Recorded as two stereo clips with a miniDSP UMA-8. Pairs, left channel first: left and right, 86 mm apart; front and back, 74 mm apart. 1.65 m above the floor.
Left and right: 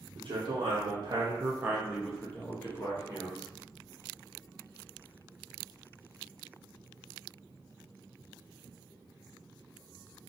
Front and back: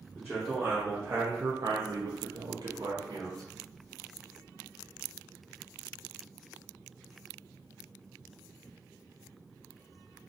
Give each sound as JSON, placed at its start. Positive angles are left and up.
{"t": 0.1, "sound": "a man speaking", "azimuth_deg": -90, "distance_m": 0.9}